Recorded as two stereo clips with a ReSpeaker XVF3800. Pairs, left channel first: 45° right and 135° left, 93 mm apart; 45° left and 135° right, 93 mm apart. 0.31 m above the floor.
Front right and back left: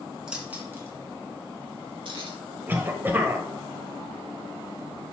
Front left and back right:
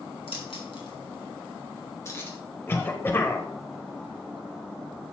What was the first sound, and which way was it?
Keys jangling, 55° left.